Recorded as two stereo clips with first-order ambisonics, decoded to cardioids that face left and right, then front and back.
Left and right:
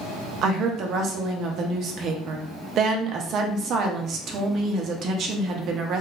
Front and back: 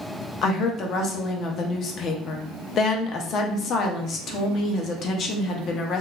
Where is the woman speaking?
50° right, 0.5 m.